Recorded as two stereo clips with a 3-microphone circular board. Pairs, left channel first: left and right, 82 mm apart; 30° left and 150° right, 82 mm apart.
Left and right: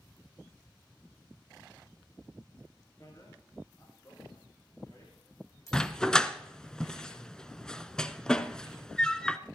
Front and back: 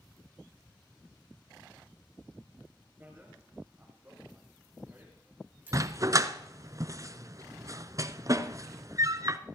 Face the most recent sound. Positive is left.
turn(degrees=170)